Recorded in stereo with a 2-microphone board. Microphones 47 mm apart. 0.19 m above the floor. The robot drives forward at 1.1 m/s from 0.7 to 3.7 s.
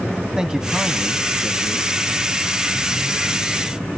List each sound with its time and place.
0.4 s a man speaking: 15° right (ahead or behind), 1.1 m; by 1.9 s 10° right (ahead or behind), 2.0 m